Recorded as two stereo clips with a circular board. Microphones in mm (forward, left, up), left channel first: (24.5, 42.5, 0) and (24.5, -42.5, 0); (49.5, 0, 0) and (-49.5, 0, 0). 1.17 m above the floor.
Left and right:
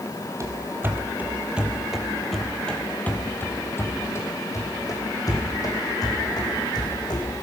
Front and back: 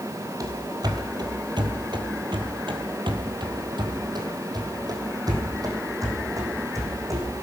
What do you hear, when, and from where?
0.4 s running footsteps: 135° right, 2 m; by 7.4 s 120° left, 4.5 m